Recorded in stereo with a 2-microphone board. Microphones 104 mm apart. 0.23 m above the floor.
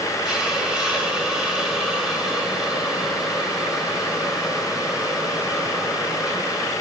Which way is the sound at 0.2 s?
5° right (ahead or behind).